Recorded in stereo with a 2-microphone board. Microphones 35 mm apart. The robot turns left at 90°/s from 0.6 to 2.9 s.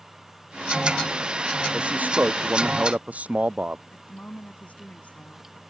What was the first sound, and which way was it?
A man speaking, 25° right.